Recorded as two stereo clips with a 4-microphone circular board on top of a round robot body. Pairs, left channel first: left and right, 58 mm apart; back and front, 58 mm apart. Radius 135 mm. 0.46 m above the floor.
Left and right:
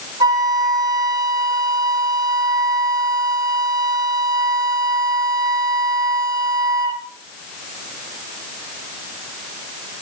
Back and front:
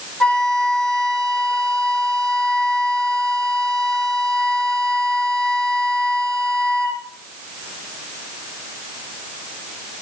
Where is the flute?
105° right, 5 m.